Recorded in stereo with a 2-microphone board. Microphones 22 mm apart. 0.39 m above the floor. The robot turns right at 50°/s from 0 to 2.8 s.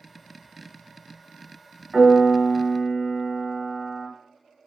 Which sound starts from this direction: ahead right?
A piano, at 1.9 s.